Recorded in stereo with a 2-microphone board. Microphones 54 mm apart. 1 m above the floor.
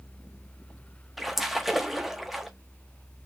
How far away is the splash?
About 0.7 m.